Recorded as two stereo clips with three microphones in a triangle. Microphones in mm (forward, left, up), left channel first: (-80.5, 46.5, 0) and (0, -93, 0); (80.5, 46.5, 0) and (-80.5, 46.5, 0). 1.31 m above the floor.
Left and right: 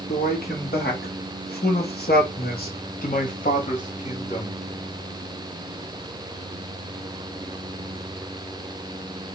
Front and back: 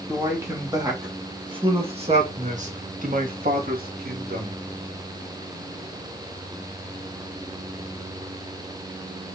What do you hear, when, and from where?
0.1 s a man speaking: 105° left, 3 m; by 4.6 s 170° left, 3 m